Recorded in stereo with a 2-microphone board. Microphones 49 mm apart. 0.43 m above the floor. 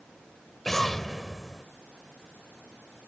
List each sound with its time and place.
0.7 s an explosion: 5° left (ahead or behind)